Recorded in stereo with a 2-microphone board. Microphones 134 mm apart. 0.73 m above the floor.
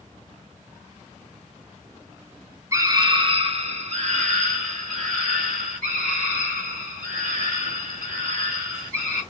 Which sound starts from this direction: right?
A scream, at 2.7 s.